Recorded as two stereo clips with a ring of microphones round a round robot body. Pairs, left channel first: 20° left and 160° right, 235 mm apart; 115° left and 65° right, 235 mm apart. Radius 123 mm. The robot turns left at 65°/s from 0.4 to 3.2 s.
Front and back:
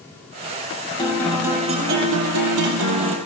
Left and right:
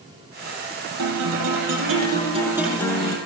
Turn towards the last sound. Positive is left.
turn(degrees=170)